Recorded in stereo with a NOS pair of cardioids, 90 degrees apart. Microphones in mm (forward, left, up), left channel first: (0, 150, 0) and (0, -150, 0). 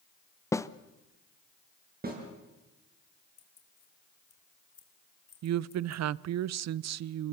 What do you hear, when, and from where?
0.5 s a snare drum: 10° left, 0.7 m
2.0 s a snare drum: 30° right, 7 m
3.4 s keys jangling: 50° left, 3 m
5.4 s a woman speaking: 55° right, 0.6 m